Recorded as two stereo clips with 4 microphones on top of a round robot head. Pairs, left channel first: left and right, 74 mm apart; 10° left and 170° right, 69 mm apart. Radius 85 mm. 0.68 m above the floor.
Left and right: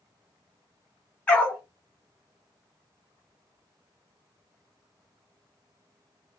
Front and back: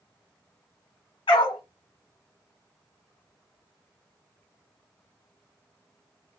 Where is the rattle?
No rattle in this recording.